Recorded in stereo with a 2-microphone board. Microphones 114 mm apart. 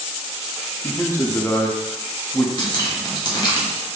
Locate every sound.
0.8 s a man speaking: 20° left (ahead or behind), 0.5 m
2.6 s dripping: 35° left (ahead or behind), 0.9 m